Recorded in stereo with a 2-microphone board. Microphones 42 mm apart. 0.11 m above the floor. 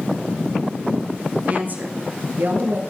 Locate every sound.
1.5 s a woman speaking: 40° right (ahead or behind), 1.6 m; by 2.8 s 50° right (ahead or behind), 1.9 m